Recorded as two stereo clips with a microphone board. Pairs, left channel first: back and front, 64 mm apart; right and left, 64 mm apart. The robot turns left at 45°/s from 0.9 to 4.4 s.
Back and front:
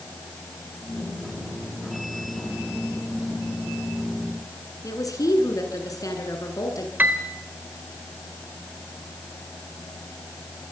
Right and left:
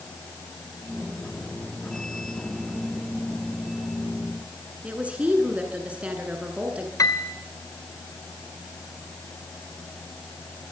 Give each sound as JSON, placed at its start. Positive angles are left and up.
{"t": 4.8, "sound": "a woman speaking", "azimuth_deg": 160, "distance_m": 9.5}
{"t": 7.0, "sound": "a piano", "azimuth_deg": -60, "distance_m": 2.5}